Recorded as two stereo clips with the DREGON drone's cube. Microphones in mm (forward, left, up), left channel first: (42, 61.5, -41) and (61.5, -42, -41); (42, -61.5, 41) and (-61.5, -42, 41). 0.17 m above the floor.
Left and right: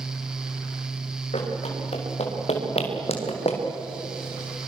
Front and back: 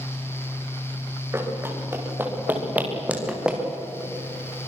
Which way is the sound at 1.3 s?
105° left.